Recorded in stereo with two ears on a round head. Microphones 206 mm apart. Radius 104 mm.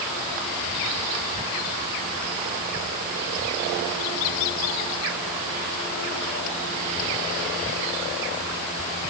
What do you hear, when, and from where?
Only background noise.